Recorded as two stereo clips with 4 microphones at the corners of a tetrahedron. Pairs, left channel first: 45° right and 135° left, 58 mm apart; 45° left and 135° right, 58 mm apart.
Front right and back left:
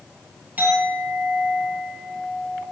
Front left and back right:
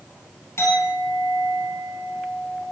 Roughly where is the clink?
Left.